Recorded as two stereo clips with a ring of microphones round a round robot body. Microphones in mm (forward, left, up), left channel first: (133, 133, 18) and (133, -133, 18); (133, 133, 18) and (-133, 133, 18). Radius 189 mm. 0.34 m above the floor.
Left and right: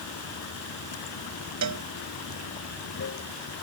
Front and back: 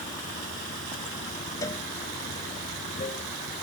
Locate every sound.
0.0 s running water: 60° left
1.6 s a cowbell: 80° right